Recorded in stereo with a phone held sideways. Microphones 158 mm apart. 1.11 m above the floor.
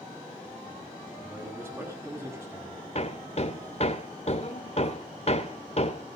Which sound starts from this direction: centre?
A man speaking, at 1.2 s.